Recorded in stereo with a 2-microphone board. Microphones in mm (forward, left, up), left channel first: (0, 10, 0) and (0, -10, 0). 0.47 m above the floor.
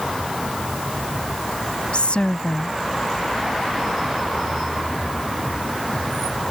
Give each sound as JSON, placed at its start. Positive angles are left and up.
{"t": 1.9, "sound": "a woman speaking", "side_deg": 60}